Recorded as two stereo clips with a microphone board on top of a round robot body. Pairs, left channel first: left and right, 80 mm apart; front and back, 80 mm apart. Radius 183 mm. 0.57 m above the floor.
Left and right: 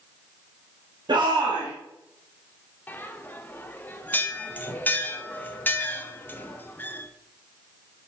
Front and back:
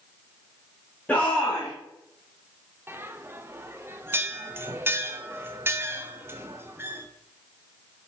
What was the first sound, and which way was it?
A shout, 75° right.